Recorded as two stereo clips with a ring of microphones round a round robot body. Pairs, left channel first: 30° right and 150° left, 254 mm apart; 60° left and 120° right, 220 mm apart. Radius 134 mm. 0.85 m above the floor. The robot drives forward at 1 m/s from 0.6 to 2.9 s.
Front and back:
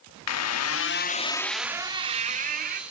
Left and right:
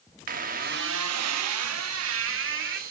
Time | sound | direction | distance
0.3 | a squeak | 60° right | 1.0 m